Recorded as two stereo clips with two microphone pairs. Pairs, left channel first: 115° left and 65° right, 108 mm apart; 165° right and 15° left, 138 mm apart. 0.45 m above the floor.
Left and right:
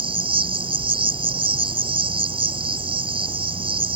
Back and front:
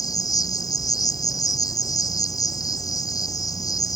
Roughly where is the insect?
Right.